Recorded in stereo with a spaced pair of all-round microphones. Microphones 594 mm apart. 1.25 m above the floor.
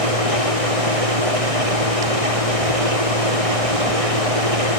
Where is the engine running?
65° right (ahead or behind).